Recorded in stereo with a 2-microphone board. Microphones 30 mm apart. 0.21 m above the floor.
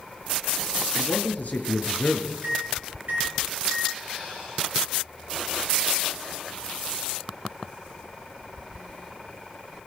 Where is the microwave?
60° right (ahead or behind), 5 m.